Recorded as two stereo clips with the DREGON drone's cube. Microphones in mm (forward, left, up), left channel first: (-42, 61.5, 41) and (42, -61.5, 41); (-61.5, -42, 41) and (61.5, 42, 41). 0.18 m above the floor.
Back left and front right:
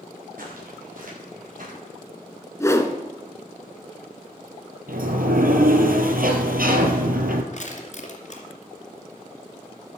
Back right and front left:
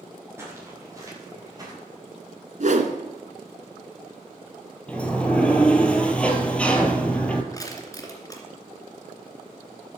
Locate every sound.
0.4 s footsteps: 40° right, 7 m; by 1.7 s 30° right, 7.5 m
2.6 s a whoosh: 55° left, 1.2 m
4.9 s a sliding door: 65° right, 1.6 m
7.5 s crushing: 150° left, 2.5 m